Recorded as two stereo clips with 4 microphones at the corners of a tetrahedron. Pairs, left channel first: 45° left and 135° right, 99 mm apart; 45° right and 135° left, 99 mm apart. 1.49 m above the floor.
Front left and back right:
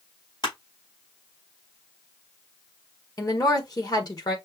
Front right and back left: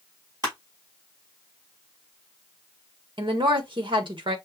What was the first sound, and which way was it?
Crushing, 85° left.